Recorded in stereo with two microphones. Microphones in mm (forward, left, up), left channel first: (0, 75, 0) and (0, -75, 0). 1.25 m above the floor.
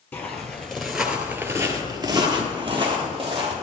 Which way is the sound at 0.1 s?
15° left (ahead or behind).